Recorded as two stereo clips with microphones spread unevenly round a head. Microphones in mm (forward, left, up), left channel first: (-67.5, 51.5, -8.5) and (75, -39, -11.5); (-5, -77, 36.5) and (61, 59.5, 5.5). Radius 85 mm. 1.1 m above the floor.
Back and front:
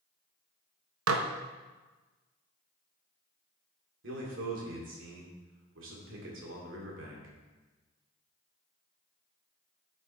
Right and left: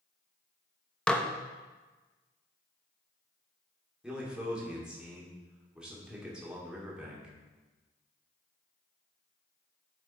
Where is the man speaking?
20° right, 2.5 m.